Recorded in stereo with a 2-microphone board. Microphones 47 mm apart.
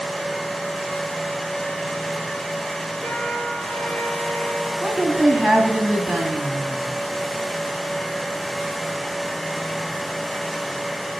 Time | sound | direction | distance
3.0 | a trumpet | 25° left (ahead or behind) | 4.5 m
4.8 | a woman speaking | 5° left (ahead or behind) | 2.5 m